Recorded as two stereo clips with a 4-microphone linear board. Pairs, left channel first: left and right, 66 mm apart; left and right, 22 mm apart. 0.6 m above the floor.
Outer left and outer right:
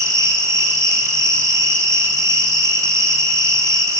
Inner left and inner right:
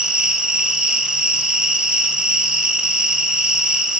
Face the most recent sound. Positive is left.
turn(degrees=-55)  # may be behind; listen again after turning